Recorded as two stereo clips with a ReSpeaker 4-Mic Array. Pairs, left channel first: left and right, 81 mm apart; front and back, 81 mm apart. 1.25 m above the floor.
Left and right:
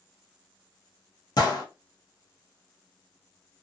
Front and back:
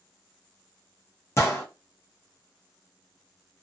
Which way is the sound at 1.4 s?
55° left.